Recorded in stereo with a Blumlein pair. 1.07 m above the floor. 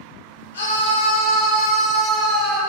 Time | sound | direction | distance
0.5 | a scream | 65° left | 1.0 m